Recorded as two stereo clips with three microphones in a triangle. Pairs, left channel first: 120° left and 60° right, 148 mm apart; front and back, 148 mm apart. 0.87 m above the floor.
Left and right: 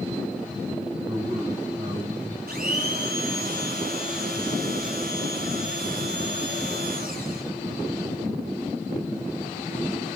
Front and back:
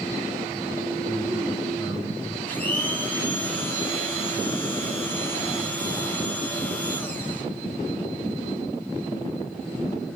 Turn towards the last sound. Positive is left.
turn(degrees=-80)